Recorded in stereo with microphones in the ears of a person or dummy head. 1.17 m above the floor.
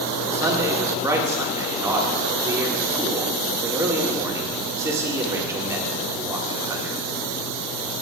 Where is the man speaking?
15° right (ahead or behind), 1.8 m.